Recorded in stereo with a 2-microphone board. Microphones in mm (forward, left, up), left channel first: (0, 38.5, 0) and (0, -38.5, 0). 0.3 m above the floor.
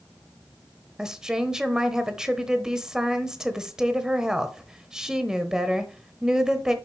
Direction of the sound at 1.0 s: 5° right (ahead or behind).